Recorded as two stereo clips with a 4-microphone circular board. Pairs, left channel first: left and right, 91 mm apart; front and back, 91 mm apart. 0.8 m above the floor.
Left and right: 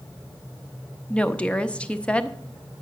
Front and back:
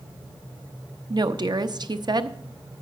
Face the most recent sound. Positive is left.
turn(degrees=165)